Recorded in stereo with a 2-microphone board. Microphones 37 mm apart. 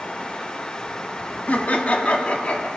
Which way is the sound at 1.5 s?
50° left (ahead or behind).